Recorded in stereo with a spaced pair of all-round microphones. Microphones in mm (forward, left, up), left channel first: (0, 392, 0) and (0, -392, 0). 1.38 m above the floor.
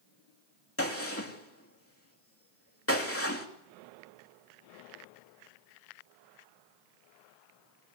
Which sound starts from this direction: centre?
A gunshot, at 0.8 s.